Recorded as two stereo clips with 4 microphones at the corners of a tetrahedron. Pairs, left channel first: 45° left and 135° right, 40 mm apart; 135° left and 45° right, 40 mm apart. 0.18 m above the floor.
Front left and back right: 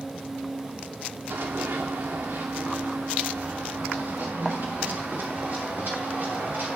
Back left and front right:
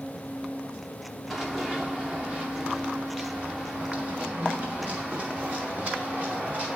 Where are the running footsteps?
125° right, 0.7 m; by 6.8 s 100° right, 3.5 m.